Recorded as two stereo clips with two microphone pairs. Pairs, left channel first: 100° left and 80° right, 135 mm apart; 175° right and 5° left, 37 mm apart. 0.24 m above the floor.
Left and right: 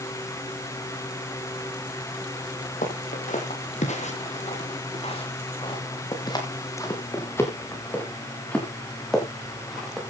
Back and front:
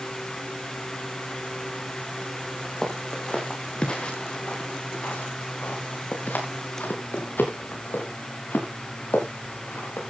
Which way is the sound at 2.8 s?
115° left.